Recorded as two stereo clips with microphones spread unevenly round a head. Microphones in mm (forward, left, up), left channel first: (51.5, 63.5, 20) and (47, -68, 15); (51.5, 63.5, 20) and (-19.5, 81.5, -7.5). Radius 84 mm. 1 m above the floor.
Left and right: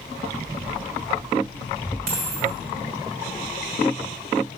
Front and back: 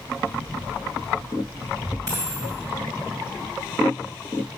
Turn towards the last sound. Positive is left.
turn(degrees=-125)